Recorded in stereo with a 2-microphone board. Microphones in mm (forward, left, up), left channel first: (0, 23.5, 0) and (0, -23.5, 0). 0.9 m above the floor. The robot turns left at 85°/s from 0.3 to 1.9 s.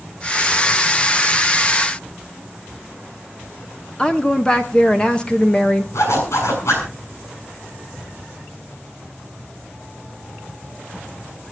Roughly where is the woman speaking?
Centre.